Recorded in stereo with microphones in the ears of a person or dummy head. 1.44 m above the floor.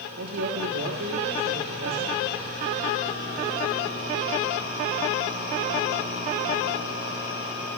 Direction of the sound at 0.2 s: 80° right.